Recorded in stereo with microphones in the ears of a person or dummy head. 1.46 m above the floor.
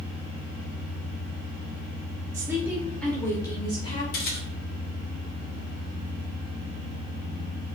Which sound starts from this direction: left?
A camera shutter, at 4.1 s.